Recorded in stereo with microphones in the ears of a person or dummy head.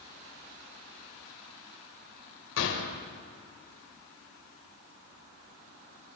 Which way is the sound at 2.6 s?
70° left (ahead or behind).